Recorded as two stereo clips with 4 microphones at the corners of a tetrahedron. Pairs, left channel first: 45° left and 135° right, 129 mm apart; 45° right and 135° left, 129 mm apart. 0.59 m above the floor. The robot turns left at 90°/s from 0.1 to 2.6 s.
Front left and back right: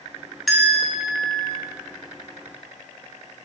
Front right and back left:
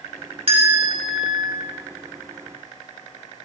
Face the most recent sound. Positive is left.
turn(degrees=-55)